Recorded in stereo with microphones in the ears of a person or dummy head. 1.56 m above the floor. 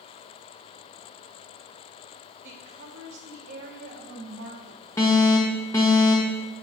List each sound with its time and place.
2.4 s a woman speaking: 60° right (ahead or behind), 1.8 m
5.0 s an alarm: 15° left (ahead or behind), 1.4 m